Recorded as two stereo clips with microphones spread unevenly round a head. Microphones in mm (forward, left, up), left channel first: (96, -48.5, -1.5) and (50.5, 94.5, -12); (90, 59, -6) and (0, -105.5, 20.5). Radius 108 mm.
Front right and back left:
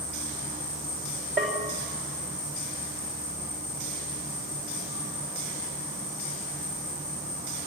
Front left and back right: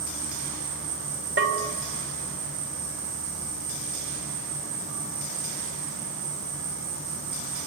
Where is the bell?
165° right, 3.5 m.